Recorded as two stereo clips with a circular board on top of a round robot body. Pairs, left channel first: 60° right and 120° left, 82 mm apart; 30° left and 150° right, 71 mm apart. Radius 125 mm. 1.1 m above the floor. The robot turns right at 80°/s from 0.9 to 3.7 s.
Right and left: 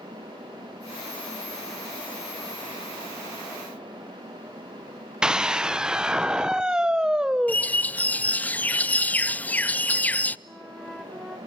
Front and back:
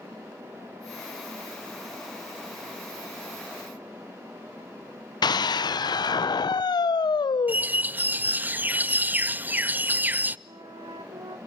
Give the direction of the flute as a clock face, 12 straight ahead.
5 o'clock.